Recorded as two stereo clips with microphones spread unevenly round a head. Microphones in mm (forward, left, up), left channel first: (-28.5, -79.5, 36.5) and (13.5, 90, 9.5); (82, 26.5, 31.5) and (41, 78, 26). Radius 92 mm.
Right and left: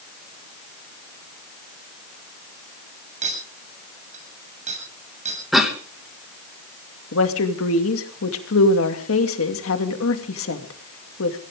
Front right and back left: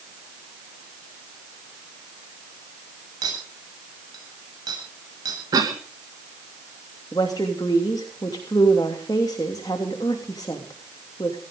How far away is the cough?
About 2 m.